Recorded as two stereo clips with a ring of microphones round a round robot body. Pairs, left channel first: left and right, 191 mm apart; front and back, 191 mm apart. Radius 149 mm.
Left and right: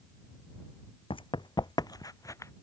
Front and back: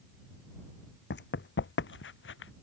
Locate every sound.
1.1 s running footsteps: 25° left; by 2.5 s 15° left